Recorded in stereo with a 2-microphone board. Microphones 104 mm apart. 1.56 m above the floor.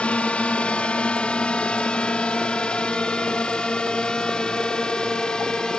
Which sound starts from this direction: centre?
A drone, at 0.0 s.